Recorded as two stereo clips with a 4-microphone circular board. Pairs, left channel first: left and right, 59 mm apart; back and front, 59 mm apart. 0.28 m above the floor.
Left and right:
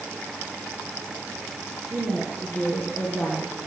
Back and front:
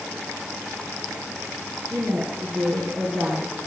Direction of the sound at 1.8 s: 40° right.